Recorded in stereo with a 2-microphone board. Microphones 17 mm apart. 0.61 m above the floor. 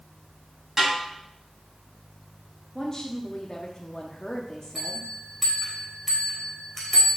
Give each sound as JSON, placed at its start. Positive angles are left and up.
{"t": 0.8, "sound": "a snare drum", "side_deg": -15, "distance_m": 4.5}
{"t": 2.8, "sound": "a woman speaking", "side_deg": 35, "distance_m": 1.0}
{"t": 4.8, "sound": "a bell", "side_deg": 5, "distance_m": 2.5}